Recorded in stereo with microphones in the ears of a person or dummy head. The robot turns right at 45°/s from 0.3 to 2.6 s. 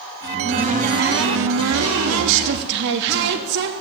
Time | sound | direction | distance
0.2 | a cupboard door | 165° right | 2.5 m